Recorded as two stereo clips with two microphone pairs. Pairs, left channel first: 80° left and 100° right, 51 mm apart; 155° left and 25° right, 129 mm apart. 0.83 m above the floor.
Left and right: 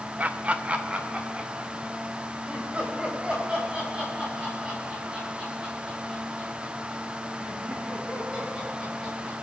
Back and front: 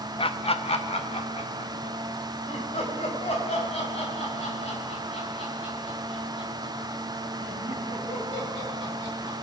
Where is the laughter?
160° right, 0.6 m; by 9.3 s 165° right, 9.5 m.